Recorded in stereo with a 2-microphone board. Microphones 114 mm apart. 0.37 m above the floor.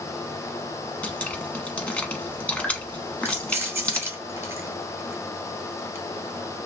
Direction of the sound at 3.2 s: 25° right (ahead or behind).